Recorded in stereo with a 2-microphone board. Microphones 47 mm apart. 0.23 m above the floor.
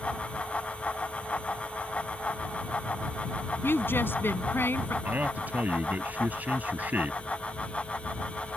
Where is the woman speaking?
50° left (ahead or behind).